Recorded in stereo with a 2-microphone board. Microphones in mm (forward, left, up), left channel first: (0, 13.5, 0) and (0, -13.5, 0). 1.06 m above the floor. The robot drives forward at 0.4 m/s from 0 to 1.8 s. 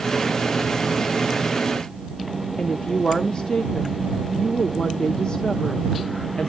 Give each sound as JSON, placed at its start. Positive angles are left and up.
{"t": 2.6, "sound": "a woman speaking", "side_deg": 35, "distance_m": 0.8}